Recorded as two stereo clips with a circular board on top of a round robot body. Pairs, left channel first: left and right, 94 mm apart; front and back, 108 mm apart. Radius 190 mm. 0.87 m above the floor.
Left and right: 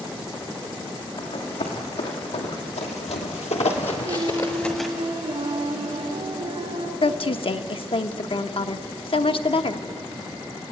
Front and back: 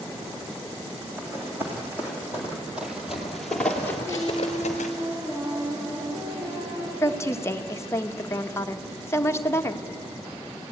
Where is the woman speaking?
65° left, 1.0 m.